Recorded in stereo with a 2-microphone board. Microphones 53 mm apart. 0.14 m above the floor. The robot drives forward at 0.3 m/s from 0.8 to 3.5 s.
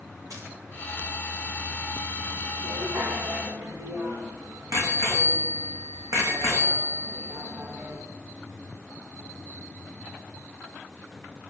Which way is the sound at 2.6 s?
80° right.